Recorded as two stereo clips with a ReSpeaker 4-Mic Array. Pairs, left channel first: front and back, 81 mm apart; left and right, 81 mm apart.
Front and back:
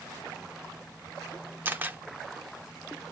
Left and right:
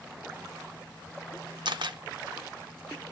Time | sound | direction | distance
1.6 | a camera shutter | 110° right | 0.6 m